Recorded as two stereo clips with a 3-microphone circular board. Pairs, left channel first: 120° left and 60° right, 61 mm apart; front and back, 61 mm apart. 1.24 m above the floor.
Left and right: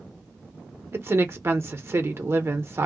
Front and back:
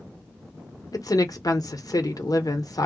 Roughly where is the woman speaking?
Ahead.